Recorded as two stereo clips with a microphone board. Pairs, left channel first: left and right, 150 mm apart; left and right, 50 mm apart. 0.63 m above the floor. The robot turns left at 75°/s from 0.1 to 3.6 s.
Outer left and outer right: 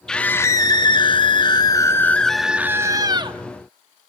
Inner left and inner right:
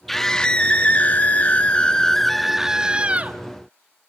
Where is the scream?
170° left, 0.8 m; by 3.4 s 75° right, 0.8 m.